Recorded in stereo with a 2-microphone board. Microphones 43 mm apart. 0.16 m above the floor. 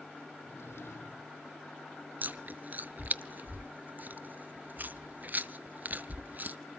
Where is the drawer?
70° left (ahead or behind), 4 m.